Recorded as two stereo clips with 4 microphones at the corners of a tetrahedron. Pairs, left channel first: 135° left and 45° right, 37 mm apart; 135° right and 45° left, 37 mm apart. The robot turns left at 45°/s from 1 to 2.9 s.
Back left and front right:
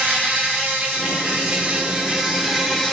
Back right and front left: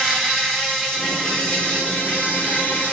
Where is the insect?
60° right, 1.0 m; by 2.9 s 145° right, 1.0 m.